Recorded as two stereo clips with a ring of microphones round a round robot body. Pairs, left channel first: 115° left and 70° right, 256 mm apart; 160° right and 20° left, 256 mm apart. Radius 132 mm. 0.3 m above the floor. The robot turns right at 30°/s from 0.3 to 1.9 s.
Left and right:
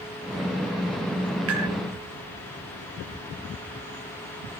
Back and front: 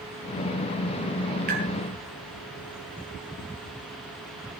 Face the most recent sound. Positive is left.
turn(degrees=-20)